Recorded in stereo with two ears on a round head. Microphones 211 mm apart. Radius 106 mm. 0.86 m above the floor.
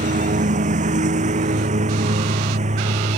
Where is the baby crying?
No baby crying in this recording.